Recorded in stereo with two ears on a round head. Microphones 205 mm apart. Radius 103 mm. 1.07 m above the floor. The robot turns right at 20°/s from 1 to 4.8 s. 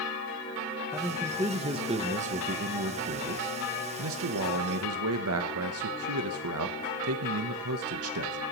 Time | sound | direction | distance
0.9 | a man speaking | 170° right | 0.8 m